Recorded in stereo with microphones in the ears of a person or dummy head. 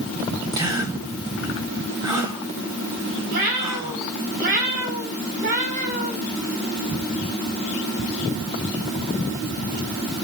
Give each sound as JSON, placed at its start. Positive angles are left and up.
{"t": 0.5, "sound": "a gasp", "side_deg": -20, "distance_m": 2.0}
{"t": 3.3, "sound": "a cat meowing", "side_deg": -50, "distance_m": 3.5}